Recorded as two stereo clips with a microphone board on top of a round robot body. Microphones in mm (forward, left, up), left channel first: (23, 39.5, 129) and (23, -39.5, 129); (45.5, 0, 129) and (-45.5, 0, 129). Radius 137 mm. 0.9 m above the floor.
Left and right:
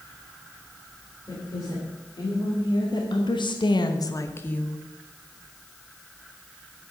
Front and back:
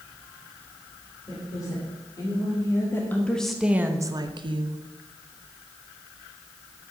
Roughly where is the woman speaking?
Ahead left.